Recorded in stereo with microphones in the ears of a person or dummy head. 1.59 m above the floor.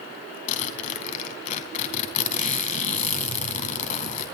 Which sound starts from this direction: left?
A zipper, at 0.5 s.